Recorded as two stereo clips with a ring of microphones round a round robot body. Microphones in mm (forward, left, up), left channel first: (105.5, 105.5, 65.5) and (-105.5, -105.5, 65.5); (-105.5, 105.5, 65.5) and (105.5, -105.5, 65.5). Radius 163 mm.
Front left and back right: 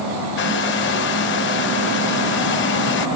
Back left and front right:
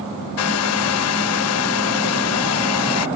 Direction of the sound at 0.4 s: 95° left.